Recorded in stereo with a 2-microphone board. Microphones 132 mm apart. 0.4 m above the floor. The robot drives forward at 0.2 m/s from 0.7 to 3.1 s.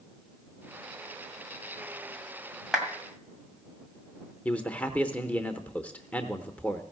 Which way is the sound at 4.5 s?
10° left (ahead or behind).